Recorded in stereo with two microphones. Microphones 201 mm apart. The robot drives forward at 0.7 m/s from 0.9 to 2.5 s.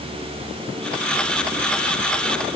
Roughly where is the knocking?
No knocking in this recording.